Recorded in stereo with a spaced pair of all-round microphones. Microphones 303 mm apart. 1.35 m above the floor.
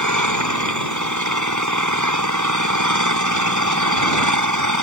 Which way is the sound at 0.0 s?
75° right (ahead or behind).